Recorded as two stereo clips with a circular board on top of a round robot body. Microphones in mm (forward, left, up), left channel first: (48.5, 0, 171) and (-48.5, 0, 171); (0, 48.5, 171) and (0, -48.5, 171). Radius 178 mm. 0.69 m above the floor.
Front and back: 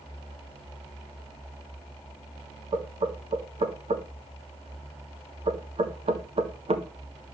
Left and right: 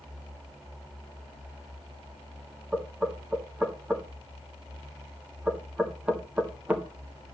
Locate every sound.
2.7 s knocking: 165° right, 1.8 m